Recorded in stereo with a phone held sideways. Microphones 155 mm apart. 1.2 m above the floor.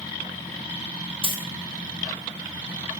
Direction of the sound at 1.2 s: 35° right (ahead or behind).